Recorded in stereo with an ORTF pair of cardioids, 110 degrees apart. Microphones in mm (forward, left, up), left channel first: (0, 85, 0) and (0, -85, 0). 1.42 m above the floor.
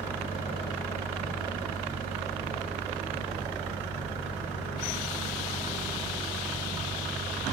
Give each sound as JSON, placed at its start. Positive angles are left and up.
{"t": 0.0, "sound": "a fan", "azimuth_deg": -10}